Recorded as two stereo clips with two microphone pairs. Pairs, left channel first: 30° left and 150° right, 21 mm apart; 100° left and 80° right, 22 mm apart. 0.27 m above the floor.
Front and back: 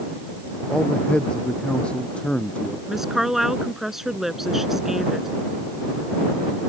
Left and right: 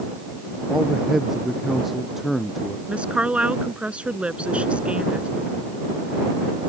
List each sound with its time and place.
0.7 s a man speaking: 10° right; by 2.8 s straight ahead
2.9 s a woman speaking: 80° right